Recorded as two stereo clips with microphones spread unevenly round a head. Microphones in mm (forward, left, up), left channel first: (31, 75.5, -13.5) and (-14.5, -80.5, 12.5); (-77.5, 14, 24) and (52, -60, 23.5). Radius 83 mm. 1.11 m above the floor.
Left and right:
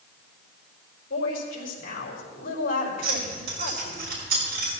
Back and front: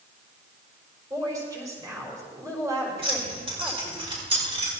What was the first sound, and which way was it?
A woman speaking, 40° left.